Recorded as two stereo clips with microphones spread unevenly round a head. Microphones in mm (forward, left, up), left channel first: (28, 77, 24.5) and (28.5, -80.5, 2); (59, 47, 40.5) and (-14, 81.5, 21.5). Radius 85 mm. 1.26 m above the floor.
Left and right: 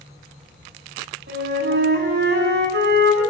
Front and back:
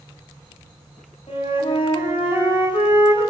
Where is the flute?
75° right, 8.5 m.